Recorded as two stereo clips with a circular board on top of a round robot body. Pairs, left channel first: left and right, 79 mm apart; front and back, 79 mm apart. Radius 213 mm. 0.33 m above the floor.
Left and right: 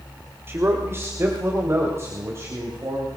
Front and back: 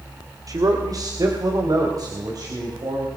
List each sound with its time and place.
0.5 s a man speaking: 145° right, 2.5 m